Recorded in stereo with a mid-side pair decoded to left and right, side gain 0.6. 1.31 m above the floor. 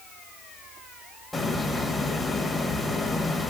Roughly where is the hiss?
Ahead.